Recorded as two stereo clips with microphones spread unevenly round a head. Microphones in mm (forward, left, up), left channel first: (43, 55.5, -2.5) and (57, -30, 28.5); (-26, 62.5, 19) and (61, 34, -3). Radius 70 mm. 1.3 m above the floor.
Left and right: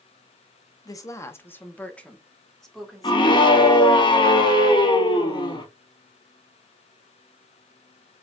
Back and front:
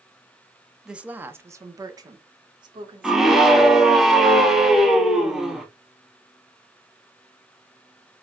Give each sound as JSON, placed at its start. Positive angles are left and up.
{"t": 0.8, "sound": "a woman speaking", "azimuth_deg": 60, "distance_m": 1.1}
{"t": 3.0, "sound": "a scream", "azimuth_deg": 70, "distance_m": 2.0}